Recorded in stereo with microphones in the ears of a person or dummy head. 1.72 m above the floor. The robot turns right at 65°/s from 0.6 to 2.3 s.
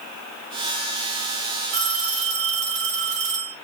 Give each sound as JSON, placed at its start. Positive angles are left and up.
{"t": 1.7, "sound": "a phone ringing", "azimuth_deg": -80, "distance_m": 3.5}